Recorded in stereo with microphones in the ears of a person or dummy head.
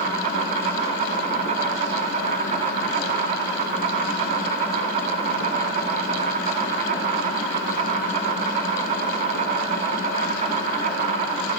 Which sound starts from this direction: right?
An insect, at 0.0 s.